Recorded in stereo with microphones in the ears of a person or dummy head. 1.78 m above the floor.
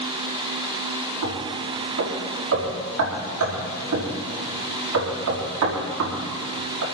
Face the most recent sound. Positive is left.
turn(degrees=-75)  # may be behind; listen again after turning